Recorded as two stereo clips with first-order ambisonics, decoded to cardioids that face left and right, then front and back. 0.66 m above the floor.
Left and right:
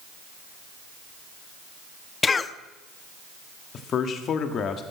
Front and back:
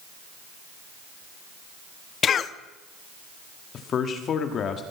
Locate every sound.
2.2 s a cough: 30° left, 0.6 m
3.7 s a man speaking: 45° left, 1.5 m